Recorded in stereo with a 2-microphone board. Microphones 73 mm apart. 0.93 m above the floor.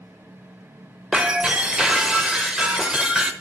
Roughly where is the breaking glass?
Centre.